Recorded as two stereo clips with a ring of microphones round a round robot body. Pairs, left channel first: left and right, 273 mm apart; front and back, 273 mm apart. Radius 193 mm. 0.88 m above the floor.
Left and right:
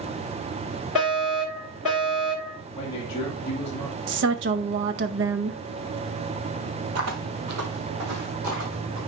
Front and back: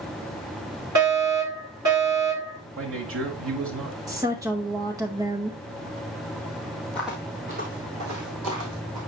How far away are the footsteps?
About 1.5 m.